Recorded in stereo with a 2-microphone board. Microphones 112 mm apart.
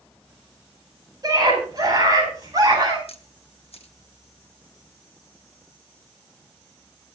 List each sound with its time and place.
1.2 s a scream: 35° right (ahead or behind), 9.5 m; by 3.0 s 30° right (ahead or behind), 10.5 m
3.1 s a camera shutter: 60° left (ahead or behind), 1.4 m